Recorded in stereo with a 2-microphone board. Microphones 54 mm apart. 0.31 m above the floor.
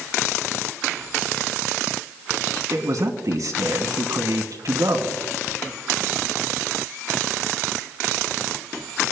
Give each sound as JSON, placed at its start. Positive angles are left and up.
{"t": 2.7, "sound": "a man speaking", "side_deg": -65, "distance_m": 2.5}